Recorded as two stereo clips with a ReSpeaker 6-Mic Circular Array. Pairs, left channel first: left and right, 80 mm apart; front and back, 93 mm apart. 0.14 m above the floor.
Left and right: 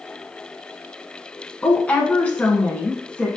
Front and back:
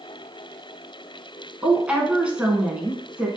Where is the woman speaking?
120° left, 1.0 m.